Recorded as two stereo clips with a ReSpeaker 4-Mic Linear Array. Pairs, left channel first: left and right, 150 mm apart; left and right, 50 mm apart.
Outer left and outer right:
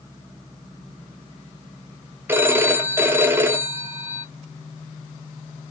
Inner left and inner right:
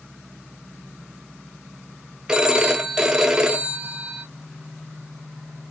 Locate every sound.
2.3 s a phone ringing: 15° right (ahead or behind), 0.5 m